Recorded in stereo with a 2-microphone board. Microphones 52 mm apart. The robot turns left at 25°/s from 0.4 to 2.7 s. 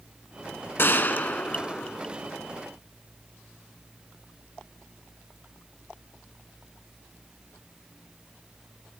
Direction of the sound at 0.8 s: 45° left.